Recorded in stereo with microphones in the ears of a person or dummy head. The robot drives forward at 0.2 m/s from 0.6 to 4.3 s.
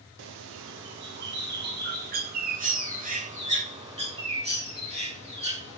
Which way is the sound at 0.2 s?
70° right (ahead or behind).